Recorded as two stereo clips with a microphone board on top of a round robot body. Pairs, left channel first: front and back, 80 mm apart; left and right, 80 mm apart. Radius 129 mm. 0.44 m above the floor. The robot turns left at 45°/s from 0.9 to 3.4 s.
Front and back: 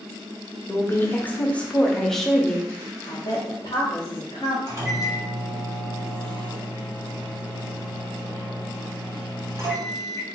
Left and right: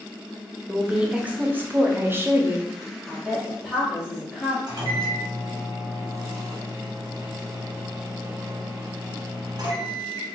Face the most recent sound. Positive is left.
turn(degrees=-125)